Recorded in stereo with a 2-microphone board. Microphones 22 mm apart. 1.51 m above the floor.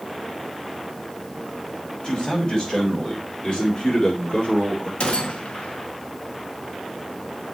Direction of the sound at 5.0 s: 70° left (ahead or behind).